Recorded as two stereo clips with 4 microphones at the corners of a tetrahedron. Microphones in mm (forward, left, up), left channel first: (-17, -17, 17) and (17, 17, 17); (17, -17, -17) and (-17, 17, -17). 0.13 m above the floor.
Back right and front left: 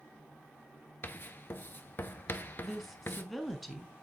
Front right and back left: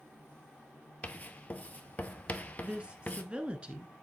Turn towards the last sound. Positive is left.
turn(degrees=135)